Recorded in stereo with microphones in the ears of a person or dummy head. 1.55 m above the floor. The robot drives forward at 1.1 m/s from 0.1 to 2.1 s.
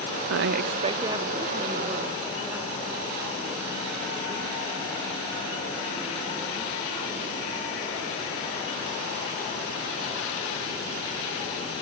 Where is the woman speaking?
85° right, 0.5 m; by 6.7 s 15° right (ahead or behind), 2 m.